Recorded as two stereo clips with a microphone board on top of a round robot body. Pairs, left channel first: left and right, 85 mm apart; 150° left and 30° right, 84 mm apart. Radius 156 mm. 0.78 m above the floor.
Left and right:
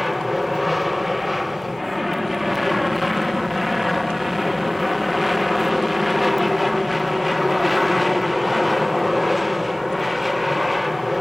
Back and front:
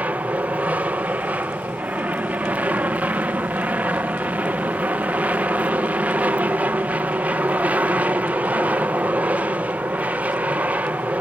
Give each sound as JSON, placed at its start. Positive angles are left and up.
{"t": 0.0, "sound": "an aircraft", "azimuth_deg": 0}